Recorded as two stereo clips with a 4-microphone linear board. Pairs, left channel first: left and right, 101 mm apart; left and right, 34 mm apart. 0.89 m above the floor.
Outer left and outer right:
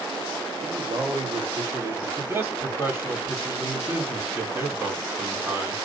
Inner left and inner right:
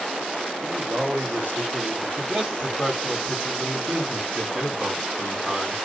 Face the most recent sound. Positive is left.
turn(degrees=-25)  # may be behind; listen again after turning